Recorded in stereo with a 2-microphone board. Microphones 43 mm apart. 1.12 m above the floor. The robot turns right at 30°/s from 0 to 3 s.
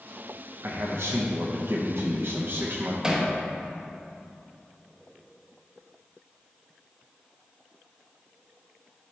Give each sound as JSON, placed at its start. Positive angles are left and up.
{"t": 0.6, "sound": "a man speaking", "azimuth_deg": -115, "distance_m": 0.9}
{"t": 3.0, "sound": "hammering", "side_deg": -15, "distance_m": 1.1}